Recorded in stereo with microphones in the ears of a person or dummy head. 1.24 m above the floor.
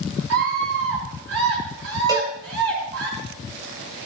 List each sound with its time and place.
0.3 s a scream: 80° right, 6.5 m
2.1 s a cowbell: 15° right (ahead or behind), 2.5 m